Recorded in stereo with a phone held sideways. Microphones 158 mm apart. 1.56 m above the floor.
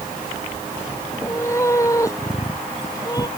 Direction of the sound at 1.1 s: 15° left (ahead or behind).